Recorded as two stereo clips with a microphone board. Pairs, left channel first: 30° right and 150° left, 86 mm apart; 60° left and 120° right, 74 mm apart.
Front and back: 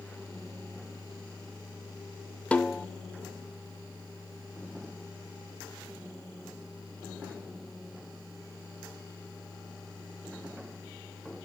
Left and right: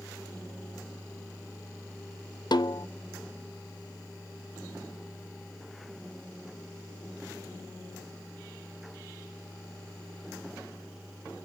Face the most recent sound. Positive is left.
turn(degrees=45)